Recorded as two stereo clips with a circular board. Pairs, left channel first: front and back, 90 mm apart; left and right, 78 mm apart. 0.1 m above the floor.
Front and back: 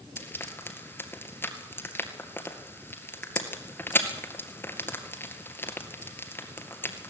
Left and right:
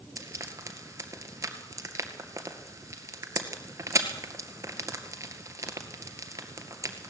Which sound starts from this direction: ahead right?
Frying, at 0.2 s.